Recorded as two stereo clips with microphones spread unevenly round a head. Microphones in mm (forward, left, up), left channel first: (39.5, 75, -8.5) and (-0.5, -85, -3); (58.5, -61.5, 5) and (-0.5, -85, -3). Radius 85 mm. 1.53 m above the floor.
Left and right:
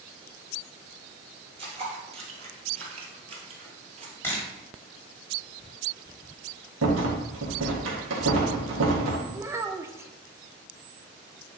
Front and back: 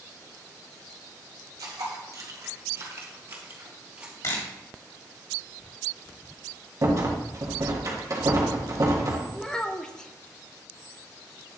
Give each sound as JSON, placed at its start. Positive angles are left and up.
{"t": 1.6, "sound": "footsteps", "azimuth_deg": -155, "distance_m": 2.5}
{"t": 4.2, "sound": "a camera shutter", "azimuth_deg": 0, "distance_m": 2.5}
{"t": 6.8, "sound": "a rattle", "azimuth_deg": -120, "distance_m": 1.6}
{"t": 9.3, "sound": "a child speaking", "azimuth_deg": -40, "distance_m": 0.5}